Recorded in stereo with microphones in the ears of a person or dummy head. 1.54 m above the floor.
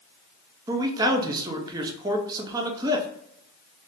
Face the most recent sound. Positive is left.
turn(degrees=-20)  # may be behind; listen again after turning